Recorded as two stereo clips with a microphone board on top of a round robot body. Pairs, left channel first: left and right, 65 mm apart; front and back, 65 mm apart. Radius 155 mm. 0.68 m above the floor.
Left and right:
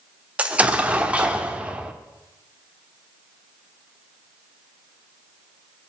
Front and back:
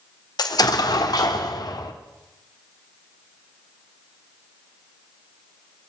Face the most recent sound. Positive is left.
turn(degrees=-20)